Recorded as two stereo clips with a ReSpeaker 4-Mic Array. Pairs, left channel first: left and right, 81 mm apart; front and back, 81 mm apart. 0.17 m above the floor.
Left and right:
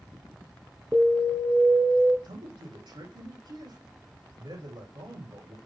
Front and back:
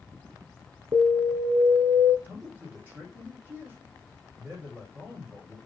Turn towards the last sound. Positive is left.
turn(degrees=-110)